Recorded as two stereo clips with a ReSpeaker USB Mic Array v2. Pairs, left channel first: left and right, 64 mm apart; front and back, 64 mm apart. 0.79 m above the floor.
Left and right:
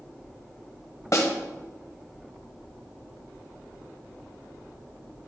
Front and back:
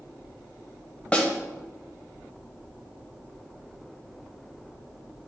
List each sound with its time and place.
1.1 s a snare drum: 70° left, 1.1 m